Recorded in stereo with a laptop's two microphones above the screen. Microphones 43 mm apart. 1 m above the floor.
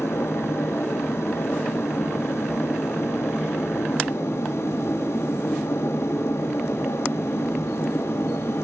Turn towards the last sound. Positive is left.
turn(degrees=85)